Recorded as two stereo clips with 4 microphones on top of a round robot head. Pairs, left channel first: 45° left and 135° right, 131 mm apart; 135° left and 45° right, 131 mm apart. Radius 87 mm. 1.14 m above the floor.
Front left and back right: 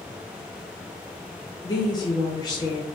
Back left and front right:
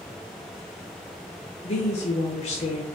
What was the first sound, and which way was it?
A woman speaking, 100° left.